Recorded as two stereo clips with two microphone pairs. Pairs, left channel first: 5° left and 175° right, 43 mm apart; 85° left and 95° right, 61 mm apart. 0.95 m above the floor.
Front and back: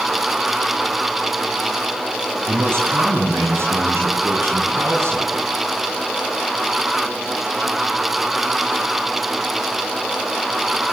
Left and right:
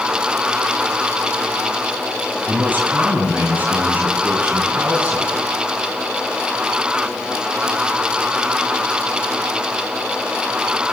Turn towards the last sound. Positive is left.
turn(degrees=-165)